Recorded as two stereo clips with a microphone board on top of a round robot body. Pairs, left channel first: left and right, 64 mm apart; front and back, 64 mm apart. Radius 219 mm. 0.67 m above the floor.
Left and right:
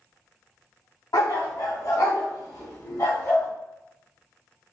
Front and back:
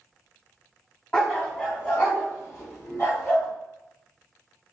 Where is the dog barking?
70° left, 2.5 m; by 3.5 s 50° left, 4.5 m.